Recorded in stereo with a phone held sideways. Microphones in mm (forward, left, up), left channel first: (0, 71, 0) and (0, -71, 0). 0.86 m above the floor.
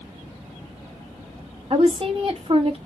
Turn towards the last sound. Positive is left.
turn(degrees=-40)  # may be behind; listen again after turning